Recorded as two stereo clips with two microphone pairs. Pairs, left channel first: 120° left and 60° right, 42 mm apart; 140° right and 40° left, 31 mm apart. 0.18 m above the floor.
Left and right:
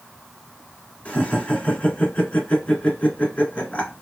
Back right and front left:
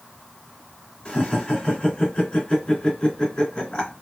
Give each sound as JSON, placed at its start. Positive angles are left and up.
{"t": 1.1, "sound": "laughter", "azimuth_deg": 170, "distance_m": 2.5}